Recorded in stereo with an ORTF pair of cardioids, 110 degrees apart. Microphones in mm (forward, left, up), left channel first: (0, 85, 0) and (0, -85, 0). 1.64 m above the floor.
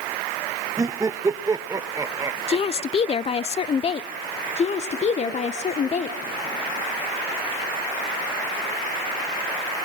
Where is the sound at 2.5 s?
35° left, 0.8 m.